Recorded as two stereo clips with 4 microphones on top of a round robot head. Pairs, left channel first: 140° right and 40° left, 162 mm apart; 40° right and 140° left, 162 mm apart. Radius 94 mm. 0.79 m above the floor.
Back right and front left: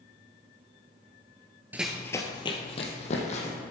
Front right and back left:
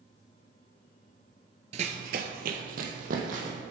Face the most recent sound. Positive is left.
turn(degrees=175)